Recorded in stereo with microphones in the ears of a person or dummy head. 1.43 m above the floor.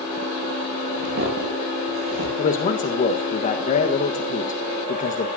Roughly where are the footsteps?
Right.